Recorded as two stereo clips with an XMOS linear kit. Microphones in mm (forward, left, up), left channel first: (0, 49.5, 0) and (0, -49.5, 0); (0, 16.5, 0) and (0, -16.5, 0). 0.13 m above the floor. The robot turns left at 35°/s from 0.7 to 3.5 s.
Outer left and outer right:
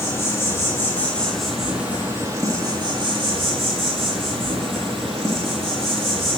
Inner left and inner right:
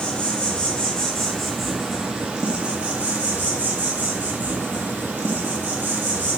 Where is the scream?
I don't hear a scream.